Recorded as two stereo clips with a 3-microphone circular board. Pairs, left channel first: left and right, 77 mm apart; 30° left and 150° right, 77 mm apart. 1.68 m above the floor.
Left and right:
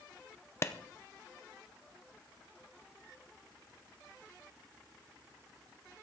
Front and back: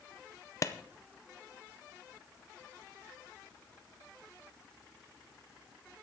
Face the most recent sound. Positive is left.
turn(degrees=55)